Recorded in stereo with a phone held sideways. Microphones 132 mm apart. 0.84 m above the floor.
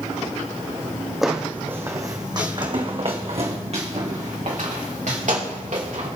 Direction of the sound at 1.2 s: Centre (ahead or behind).